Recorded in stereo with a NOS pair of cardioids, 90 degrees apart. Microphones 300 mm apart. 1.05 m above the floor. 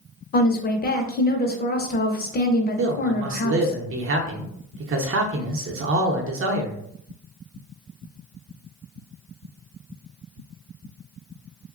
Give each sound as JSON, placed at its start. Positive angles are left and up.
{"t": 0.3, "sound": "a woman speaking", "azimuth_deg": 30, "distance_m": 0.6}
{"t": 2.8, "sound": "a man speaking", "azimuth_deg": -45, "distance_m": 0.7}